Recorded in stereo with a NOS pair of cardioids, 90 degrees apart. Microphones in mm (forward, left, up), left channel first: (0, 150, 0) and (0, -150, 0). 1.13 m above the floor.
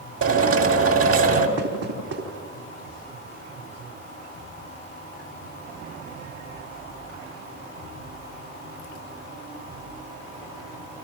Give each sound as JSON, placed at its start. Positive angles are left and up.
{"t": 0.2, "sound": "a drill", "azimuth_deg": -50, "distance_m": 3.5}
{"t": 1.6, "sound": "knocking", "azimuth_deg": -55, "distance_m": 5.0}